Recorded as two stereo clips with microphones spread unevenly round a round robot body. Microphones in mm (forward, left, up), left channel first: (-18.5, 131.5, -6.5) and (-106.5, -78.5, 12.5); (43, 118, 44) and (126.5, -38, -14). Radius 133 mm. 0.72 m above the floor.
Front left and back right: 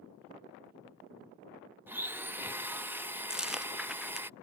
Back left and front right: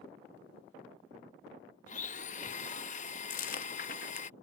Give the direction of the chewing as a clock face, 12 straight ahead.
7 o'clock.